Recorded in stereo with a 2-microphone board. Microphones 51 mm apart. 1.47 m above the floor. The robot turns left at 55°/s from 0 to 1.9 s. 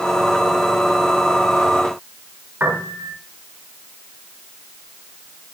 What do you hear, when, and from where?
2.6 s a piano: 35° right (ahead or behind), 6.5 m